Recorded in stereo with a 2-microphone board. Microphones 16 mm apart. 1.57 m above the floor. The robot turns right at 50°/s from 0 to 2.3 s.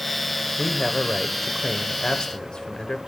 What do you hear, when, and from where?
0.6 s a man speaking: 10° right, 1.0 m; by 3.0 s 75° left, 1.0 m